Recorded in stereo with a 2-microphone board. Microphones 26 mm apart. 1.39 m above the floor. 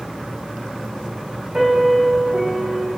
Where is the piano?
30° right (ahead or behind), 2.5 m.